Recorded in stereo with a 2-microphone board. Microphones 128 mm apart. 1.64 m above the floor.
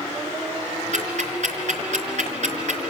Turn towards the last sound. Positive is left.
turn(degrees=-65)  # may be behind; listen again after turning